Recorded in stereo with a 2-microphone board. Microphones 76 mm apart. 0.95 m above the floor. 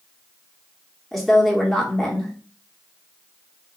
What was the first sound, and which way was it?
A woman speaking, 5° left (ahead or behind).